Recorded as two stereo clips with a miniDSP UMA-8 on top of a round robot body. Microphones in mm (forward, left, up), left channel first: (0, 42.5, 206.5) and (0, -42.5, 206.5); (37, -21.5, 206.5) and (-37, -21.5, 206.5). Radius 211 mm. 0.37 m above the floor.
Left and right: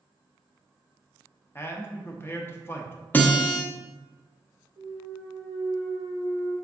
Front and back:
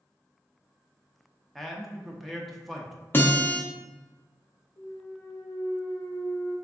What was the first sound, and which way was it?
A man speaking, 90° left.